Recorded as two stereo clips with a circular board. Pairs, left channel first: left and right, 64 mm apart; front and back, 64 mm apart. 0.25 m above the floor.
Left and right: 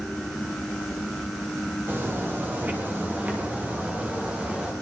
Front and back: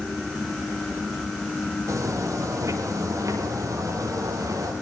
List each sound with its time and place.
1.9 s footsteps: 150° right, 6.5 m; by 4.7 s 165° right, 5.5 m